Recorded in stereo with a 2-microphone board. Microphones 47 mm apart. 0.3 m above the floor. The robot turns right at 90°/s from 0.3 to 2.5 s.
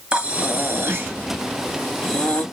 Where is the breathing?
150° right, 1.7 m; by 2.4 s 45° left, 1.7 m.